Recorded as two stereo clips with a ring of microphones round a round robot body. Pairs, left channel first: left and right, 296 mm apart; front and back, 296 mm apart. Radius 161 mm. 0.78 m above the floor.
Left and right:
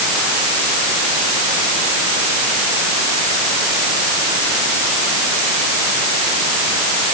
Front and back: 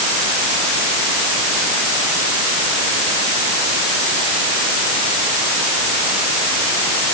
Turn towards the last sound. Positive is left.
No sound to turn to.